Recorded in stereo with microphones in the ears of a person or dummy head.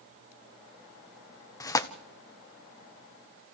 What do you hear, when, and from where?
1.6 s tearing paper: 25° left (ahead or behind), 1.0 m